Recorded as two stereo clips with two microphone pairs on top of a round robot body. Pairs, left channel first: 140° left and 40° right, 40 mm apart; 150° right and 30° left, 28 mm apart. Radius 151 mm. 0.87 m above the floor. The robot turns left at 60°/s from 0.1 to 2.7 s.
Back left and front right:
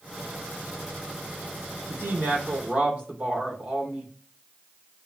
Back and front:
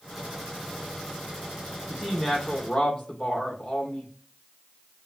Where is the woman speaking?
50° right, 3.5 m; by 4.1 s 100° right, 3.5 m.